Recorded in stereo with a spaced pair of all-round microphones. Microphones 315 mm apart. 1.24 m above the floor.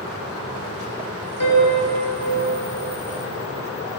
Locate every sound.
1.4 s a piano: 80° left, 7.5 m